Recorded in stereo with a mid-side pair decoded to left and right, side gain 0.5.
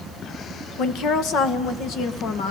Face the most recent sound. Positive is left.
turn(degrees=70)